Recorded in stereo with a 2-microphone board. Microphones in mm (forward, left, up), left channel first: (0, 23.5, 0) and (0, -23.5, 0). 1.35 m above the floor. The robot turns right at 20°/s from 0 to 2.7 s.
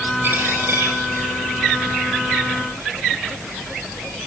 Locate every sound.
0.2 s a dropped coin: 55° right (ahead or behind), 9 m; by 4.3 s 75° right (ahead or behind), 9 m